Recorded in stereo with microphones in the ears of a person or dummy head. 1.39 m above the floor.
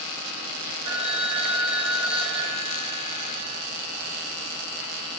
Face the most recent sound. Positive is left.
turn(degrees=-30)  # may be behind; listen again after turning